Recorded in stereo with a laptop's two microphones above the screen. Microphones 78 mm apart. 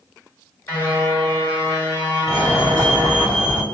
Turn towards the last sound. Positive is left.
turn(degrees=35)  # may be behind; listen again after turning